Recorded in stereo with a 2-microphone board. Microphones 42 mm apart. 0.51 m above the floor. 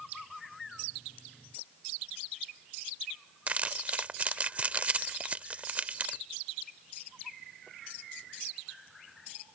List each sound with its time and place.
3.5 s crumpling: 35° right (ahead or behind)